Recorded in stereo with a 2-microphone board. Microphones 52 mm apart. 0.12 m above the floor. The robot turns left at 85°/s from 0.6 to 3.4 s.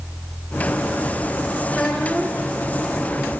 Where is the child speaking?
25° left, 5 m; by 2.5 s 40° right, 5 m.